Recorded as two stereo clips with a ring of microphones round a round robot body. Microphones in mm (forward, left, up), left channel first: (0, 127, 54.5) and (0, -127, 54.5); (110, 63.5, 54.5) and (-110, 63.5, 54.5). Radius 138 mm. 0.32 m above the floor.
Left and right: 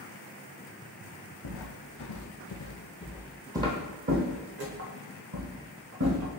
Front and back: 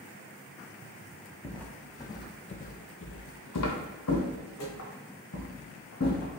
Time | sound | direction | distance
1.4 | footsteps | 85° left | 1.0 m